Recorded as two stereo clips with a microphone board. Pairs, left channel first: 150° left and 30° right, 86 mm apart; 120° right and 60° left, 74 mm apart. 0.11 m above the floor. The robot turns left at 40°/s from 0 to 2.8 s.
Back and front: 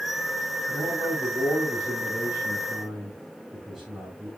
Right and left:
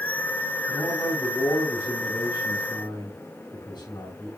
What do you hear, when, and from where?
0.7 s a man speaking: 30° right, 6.5 m; by 4.3 s 115° right, 6.5 m